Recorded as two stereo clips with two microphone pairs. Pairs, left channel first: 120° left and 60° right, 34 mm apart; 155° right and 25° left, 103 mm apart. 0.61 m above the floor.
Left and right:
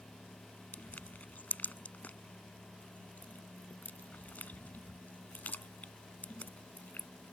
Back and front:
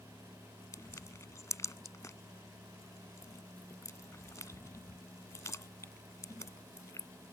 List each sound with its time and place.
0.7 s crushing: 150° left